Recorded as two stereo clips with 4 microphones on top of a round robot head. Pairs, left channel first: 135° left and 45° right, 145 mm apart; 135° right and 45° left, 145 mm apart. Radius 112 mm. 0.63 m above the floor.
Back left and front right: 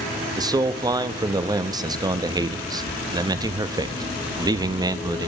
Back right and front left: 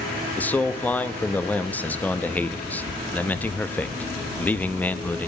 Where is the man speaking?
65° right, 0.8 m.